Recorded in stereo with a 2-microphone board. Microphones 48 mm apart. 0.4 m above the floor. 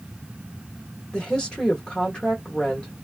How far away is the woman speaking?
About 1.0 m.